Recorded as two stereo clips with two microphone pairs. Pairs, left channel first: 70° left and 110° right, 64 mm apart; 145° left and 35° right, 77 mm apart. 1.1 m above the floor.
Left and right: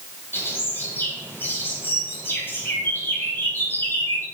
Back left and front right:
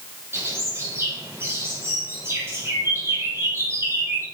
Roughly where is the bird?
Ahead.